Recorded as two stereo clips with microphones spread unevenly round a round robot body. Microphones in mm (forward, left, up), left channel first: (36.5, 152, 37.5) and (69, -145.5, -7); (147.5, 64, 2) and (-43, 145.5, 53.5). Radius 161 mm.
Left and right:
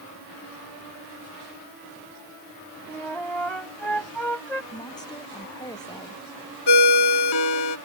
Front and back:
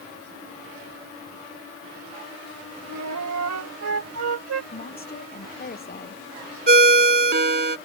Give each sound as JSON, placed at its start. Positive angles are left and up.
{"t": 2.9, "sound": "a flute", "azimuth_deg": -175}
{"t": 4.7, "sound": "a woman speaking", "azimuth_deg": 20}
{"t": 6.7, "sound": "a ringtone", "azimuth_deg": 120}